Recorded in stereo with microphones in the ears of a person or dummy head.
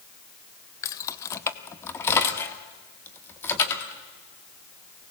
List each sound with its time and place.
0.8 s keys jangling: 20° left (ahead or behind), 0.8 m; by 5.1 s 15° left (ahead or behind), 3 m